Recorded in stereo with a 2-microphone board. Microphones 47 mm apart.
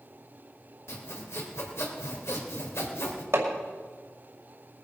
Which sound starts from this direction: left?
Sawing, at 0.9 s.